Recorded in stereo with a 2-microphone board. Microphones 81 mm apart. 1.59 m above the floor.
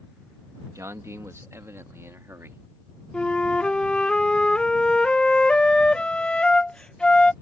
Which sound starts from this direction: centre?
A flute, at 3.1 s.